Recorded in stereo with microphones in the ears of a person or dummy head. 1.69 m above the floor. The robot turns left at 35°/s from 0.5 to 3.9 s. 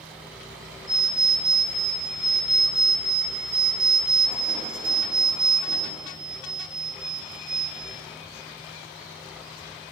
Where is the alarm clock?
20° left (ahead or behind), 0.8 m; by 7.9 s 10° right (ahead or behind), 0.8 m.